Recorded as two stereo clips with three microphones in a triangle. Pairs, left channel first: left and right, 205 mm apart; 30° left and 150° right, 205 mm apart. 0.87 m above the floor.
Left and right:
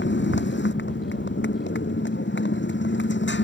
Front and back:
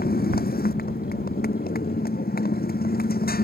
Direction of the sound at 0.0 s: 70° left.